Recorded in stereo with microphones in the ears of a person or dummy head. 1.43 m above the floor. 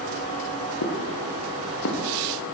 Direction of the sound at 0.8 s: 70° left (ahead or behind).